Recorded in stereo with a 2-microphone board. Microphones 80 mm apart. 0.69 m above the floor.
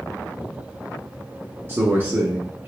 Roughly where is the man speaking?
Right.